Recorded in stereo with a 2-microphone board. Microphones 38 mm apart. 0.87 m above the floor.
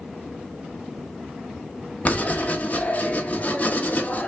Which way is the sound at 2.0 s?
35° left (ahead or behind).